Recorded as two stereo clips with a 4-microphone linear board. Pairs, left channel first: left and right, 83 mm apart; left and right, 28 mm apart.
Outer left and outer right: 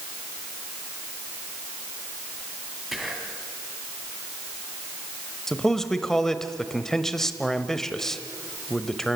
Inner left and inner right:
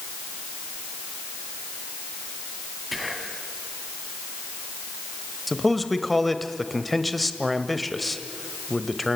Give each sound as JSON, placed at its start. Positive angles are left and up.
{"t": 2.9, "sound": "whispering", "side_deg": -5, "distance_m": 2.0}
{"t": 5.5, "sound": "a man speaking", "side_deg": 5, "distance_m": 1.1}